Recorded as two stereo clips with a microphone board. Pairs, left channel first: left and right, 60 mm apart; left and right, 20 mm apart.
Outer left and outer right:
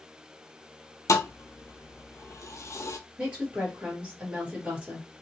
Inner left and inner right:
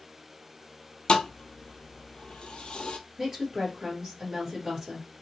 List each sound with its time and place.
1.1 s a thud: 55° left (ahead or behind), 0.5 m
3.2 s a woman speaking: 20° right (ahead or behind), 1.9 m